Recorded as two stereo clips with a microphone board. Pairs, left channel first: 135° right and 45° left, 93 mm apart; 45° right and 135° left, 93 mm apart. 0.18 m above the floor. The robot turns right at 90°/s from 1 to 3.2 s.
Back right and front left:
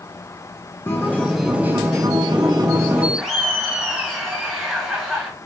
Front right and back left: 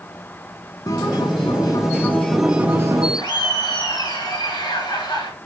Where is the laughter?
45° right, 2 m; by 5.3 s 40° right, 2 m.